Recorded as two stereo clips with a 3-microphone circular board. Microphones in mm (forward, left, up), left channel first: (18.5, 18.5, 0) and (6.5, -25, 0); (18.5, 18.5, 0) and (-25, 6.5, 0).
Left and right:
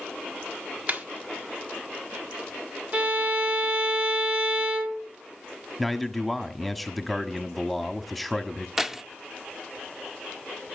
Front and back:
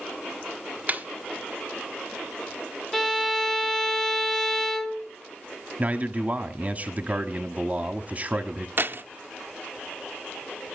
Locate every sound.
0.9 s a snare drum: 135° right, 1.2 m
2.9 s a violin: 70° right, 1.4 m
5.8 s a man speaking: 165° left, 1.0 m
8.8 s keys jangling: 175° left, 0.5 m